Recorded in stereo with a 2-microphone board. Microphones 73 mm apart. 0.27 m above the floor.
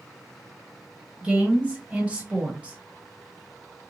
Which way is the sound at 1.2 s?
20° right (ahead or behind).